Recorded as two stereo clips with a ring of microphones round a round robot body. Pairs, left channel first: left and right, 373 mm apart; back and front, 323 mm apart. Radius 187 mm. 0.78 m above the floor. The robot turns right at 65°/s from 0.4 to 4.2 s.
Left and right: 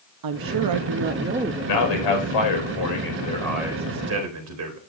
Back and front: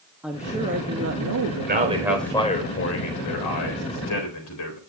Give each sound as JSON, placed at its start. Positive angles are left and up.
{"t": 0.2, "sound": "a woman speaking", "azimuth_deg": -85, "distance_m": 0.7}
{"t": 1.6, "sound": "a man speaking", "azimuth_deg": 55, "distance_m": 4.0}